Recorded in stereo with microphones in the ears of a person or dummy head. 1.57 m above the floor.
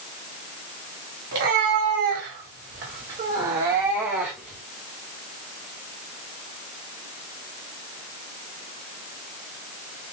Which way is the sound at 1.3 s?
60° right (ahead or behind).